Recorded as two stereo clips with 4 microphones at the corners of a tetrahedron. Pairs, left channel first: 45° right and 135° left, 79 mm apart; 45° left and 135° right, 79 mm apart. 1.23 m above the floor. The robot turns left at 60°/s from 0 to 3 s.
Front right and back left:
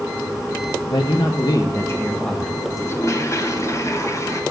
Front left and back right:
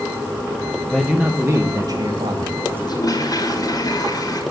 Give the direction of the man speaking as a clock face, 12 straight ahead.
1 o'clock.